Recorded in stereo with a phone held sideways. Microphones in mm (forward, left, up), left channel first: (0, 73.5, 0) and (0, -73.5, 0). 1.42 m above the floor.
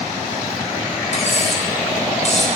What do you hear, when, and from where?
1.1 s cutlery clinking: 50° left (ahead or behind), 3 m